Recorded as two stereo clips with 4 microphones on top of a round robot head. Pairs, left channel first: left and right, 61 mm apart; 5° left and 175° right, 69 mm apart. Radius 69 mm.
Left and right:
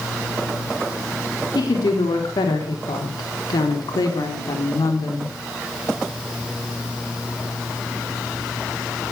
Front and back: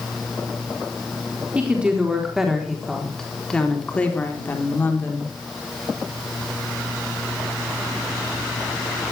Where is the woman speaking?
110° left, 4 m; by 5.3 s 60° left, 4.5 m.